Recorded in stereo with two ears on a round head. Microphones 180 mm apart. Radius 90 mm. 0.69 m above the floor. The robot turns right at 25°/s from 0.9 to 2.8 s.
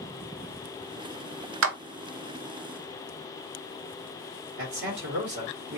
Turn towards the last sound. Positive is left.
turn(degrees=-55)  # may be behind; listen again after turning